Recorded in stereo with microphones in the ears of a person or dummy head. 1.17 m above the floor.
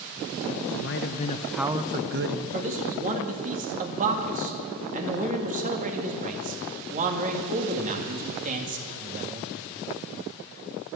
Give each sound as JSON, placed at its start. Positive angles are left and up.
{"t": 0.7, "sound": "a man speaking", "side_deg": 60, "distance_m": 1.0}
{"t": 2.5, "sound": "a man speaking", "side_deg": -35, "distance_m": 1.7}